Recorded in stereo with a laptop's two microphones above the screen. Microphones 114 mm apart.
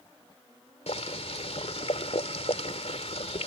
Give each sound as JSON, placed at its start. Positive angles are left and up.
{"t": 0.9, "sound": "boiling", "side_deg": 70}